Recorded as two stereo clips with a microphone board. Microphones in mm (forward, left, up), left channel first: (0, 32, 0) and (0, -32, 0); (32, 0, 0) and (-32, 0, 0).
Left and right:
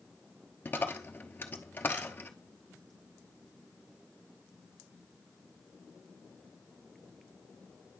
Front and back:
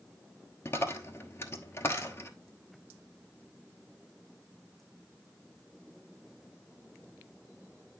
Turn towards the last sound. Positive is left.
turn(degrees=35)